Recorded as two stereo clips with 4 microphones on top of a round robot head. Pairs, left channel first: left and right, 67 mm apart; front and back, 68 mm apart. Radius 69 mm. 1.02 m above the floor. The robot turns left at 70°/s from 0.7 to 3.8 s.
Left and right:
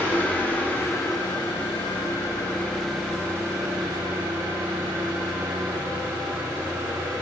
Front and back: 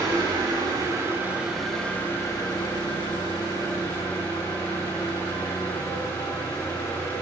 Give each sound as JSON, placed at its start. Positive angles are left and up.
{"t": 0.0, "sound": "an engine running", "azimuth_deg": 150, "distance_m": 9.0}